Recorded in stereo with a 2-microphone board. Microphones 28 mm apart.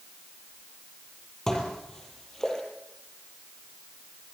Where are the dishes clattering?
20° left (ahead or behind), 6 m.